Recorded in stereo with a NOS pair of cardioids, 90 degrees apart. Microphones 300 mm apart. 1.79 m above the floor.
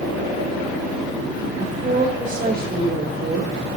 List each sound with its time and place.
1.6 s a woman speaking: 20° right, 5 m; by 3.5 s 40° right, 5 m